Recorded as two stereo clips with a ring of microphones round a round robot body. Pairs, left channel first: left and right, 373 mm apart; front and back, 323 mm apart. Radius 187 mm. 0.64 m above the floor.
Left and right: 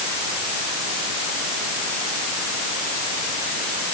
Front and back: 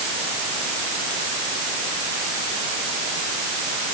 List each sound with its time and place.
Only background noise.